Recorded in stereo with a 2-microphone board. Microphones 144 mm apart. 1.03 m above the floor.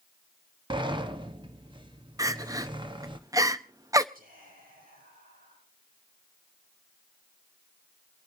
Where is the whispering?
85° right, 7 m.